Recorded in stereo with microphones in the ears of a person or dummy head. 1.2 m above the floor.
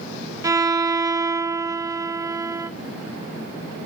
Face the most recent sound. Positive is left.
turn(degrees=-20)  # may be behind; listen again after turning